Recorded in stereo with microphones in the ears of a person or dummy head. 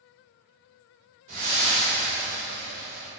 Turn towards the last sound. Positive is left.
turn(degrees=-40)  # may be behind; listen again after turning